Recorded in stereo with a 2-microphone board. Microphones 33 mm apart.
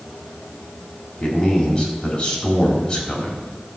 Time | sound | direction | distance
1.2 | a man speaking | 25° left (ahead or behind) | 4 m